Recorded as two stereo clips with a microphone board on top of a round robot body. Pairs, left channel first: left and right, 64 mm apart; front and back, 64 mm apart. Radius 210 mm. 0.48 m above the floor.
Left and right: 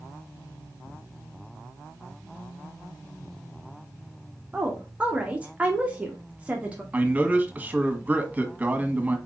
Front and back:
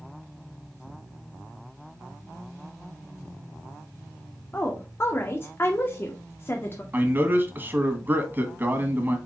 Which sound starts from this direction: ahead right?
A woman speaking, at 4.5 s.